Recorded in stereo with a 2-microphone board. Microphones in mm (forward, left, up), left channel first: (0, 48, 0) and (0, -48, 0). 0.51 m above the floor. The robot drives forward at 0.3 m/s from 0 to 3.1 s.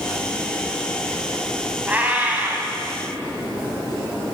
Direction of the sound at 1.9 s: 15° right (ahead or behind).